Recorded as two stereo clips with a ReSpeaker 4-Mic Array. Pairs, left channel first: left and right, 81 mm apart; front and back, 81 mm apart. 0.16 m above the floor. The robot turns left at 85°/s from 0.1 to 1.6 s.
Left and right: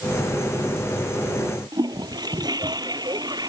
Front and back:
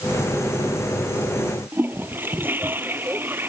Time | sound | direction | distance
1.7 | a toilet flushing | 120° right | ?